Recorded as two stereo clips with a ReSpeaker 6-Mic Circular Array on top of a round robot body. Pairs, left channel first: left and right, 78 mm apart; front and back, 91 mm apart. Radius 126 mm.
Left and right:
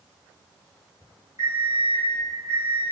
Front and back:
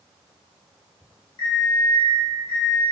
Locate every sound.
1.4 s an alarm clock: 35° right, 1.3 m